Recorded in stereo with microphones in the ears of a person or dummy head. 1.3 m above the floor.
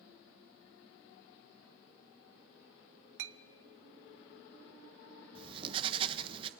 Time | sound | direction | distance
3.2 | a clink | 70° right (ahead or behind) | 1.0 m
5.3 | writing | 30° right (ahead or behind) | 1.2 m